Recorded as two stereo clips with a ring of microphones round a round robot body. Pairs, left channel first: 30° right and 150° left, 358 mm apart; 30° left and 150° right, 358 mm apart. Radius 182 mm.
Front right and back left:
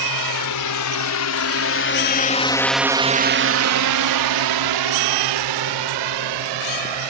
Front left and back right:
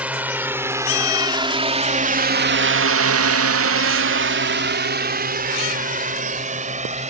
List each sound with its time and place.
0.0 s a drone: 65° right; by 7.1 s 140° left